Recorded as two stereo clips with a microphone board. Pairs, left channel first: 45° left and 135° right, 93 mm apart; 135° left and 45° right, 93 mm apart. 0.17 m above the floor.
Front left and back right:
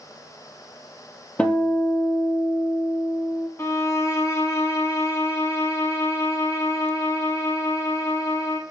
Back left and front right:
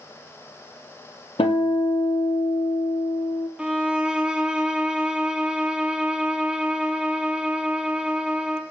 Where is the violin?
25° left, 0.7 m.